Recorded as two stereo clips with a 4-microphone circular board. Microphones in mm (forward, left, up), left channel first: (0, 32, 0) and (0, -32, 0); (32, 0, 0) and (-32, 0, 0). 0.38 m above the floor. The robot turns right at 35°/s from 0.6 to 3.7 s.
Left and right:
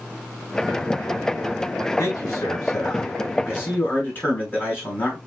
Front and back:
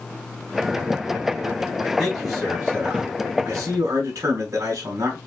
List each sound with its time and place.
2.0 s a man speaking: 85° left, 3.5 m; by 5.2 s 145° left, 3.5 m